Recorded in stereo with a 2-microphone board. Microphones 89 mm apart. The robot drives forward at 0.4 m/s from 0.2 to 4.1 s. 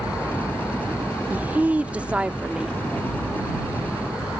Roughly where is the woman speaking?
Centre.